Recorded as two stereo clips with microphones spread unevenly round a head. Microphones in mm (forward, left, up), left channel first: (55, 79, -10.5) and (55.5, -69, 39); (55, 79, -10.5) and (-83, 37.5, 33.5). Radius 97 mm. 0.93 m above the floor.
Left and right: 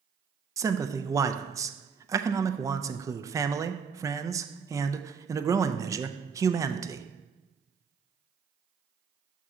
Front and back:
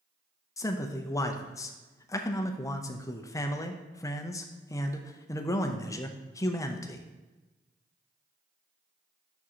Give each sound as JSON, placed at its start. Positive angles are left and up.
{"t": 0.6, "sound": "a man speaking", "azimuth_deg": -5, "distance_m": 0.5}